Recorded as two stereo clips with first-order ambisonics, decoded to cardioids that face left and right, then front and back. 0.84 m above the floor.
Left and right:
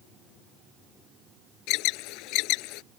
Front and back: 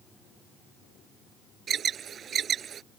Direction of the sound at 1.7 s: 120° left.